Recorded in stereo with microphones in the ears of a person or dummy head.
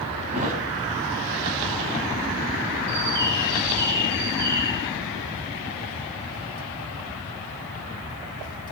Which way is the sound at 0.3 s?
40° right (ahead or behind).